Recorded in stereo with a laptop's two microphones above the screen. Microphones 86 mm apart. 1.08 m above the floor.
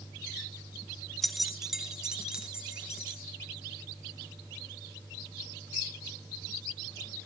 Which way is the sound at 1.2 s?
Centre (ahead or behind).